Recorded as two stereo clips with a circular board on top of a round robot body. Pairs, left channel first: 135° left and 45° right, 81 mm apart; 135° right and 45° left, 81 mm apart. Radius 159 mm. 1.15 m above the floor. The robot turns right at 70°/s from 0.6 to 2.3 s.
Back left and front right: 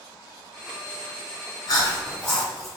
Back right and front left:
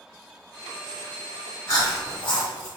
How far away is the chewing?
About 1.4 m.